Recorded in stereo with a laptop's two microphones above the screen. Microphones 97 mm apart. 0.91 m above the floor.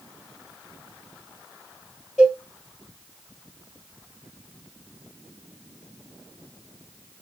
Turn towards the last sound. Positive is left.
turn(degrees=-5)  # may be behind; listen again after turning